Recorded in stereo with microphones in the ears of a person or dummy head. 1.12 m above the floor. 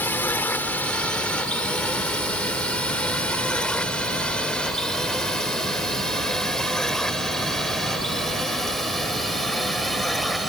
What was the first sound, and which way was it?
A drone, 10° left (ahead or behind).